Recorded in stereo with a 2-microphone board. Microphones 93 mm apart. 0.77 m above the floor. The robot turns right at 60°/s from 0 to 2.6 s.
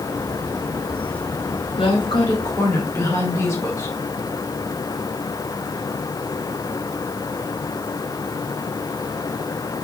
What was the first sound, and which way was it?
A woman speaking, 100° left.